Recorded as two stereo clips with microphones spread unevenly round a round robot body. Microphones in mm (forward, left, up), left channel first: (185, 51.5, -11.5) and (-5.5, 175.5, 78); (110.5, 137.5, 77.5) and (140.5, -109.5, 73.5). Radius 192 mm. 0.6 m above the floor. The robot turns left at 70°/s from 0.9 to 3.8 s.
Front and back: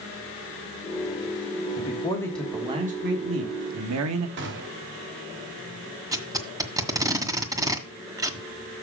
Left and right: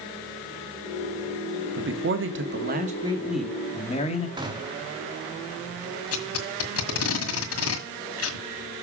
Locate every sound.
1.8 s a man speaking: 60° right, 1.2 m; by 4.3 s 160° left, 1.2 m
4.4 s a gunshot: 155° right, 0.8 m
6.1 s tape being pulled: 70° left, 1.8 m